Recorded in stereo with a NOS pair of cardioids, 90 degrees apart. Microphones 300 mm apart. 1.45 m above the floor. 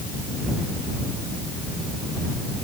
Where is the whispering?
No whispering in this recording.